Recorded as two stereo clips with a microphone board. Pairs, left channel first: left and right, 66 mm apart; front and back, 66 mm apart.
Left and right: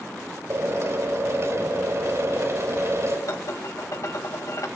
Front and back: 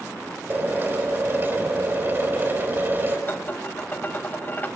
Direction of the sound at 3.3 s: 55° left.